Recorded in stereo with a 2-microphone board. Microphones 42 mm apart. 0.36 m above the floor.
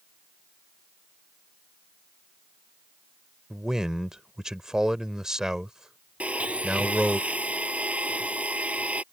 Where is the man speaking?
15° right (ahead or behind).